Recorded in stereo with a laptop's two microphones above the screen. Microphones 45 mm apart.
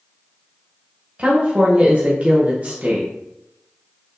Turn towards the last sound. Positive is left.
turn(degrees=-30)  # may be behind; listen again after turning